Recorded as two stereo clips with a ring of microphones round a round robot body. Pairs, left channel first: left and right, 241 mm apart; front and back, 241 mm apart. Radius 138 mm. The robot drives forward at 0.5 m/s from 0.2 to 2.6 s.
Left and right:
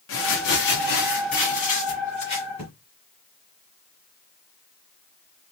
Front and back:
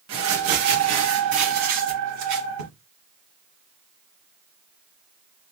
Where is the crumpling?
135° left, 1.1 m; by 2.7 s 160° left, 2 m.